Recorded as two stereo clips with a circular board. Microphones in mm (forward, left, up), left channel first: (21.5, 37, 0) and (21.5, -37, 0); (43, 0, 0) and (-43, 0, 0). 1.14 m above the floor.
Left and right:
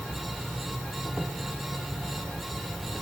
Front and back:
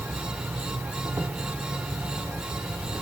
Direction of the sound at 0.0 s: Straight behind.